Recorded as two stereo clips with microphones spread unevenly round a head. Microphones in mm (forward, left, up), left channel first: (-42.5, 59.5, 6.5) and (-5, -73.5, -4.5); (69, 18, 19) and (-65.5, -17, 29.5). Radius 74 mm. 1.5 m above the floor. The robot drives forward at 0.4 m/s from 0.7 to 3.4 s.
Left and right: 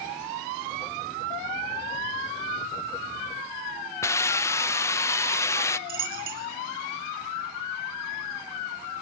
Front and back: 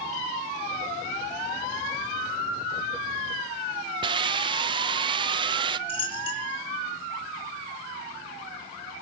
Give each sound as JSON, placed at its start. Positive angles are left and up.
{"t": 4.0, "sound": "a hiss", "azimuth_deg": 160, "distance_m": 0.7}
{"t": 5.9, "sound": "a dropped coin", "azimuth_deg": -40, "distance_m": 5.0}